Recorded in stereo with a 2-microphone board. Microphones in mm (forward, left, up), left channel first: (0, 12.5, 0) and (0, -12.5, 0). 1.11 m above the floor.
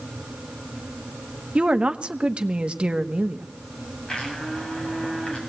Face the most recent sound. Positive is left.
turn(degrees=30)  # may be behind; listen again after turning